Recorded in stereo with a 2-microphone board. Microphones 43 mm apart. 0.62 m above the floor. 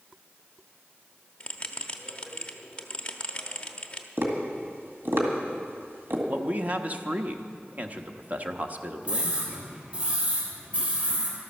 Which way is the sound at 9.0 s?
30° right (ahead or behind).